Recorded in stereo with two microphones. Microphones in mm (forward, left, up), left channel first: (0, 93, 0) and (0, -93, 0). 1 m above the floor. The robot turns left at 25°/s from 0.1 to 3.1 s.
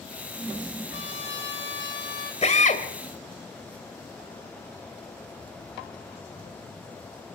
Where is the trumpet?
85° left, 5 m; by 2.3 s 50° left, 5 m.